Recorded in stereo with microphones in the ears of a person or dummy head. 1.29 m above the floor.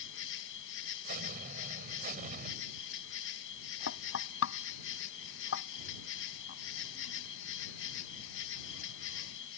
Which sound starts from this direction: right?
An explosion, at 1.1 s.